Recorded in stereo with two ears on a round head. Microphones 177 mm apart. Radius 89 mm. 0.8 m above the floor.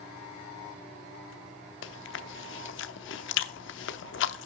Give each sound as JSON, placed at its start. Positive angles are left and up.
{"t": 1.8, "sound": "chewing", "side_deg": 65, "distance_m": 0.8}